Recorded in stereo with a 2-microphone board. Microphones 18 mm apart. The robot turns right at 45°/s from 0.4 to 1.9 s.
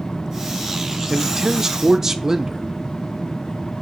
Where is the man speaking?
25° right (ahead or behind), 0.7 m.